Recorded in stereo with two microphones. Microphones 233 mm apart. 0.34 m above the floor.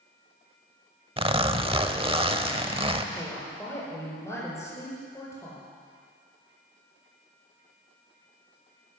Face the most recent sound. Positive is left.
turn(degrees=10)  # may be behind; listen again after turning